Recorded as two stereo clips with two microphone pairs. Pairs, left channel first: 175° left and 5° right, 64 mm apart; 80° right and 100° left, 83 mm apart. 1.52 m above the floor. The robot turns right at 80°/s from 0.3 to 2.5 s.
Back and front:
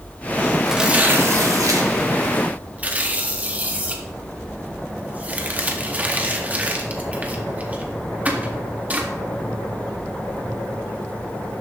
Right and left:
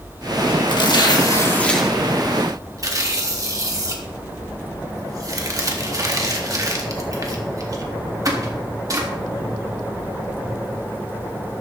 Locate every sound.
0.7 s tearing paper: 90° right, 1.7 m; by 9.1 s 60° left, 1.7 m